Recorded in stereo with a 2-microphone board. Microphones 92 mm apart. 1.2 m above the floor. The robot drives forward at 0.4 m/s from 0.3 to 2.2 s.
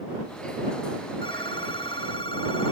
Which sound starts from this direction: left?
A phone ringing, at 1.2 s.